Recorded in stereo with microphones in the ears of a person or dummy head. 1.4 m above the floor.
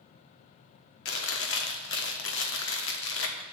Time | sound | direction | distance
1.1 | chewing | 70° left (ahead or behind) | 1.3 m